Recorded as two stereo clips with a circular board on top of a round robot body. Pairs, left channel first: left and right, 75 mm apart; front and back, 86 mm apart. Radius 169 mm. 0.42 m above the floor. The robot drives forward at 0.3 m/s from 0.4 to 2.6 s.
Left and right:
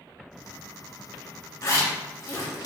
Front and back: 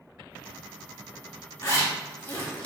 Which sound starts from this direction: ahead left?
A zipper, at 1.6 s.